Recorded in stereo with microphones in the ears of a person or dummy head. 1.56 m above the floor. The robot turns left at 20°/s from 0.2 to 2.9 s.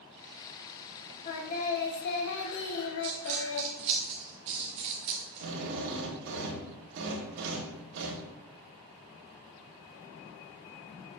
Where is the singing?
140° left, 1.4 m; by 3.7 s 110° left, 1.4 m.